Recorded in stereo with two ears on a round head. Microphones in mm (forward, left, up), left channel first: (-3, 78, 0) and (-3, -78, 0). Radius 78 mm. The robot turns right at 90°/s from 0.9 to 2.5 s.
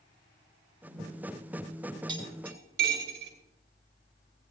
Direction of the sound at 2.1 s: 25° right (ahead or behind).